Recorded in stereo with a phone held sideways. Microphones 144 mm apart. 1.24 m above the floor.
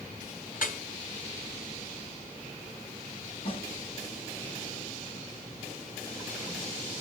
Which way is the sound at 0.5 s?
70° left (ahead or behind).